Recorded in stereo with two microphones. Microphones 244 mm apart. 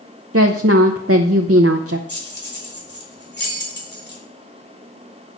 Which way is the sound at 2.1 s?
45° left (ahead or behind).